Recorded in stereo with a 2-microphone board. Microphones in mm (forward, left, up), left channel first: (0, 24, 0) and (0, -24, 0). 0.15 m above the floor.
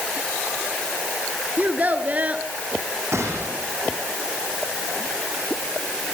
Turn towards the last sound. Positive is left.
turn(degrees=-75)  # may be behind; listen again after turning